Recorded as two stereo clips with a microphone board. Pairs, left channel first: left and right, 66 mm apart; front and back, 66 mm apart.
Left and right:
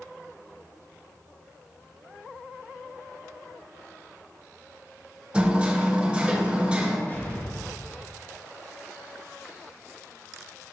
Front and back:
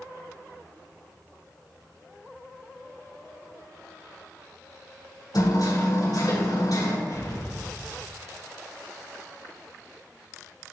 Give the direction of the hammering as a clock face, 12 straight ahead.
1 o'clock.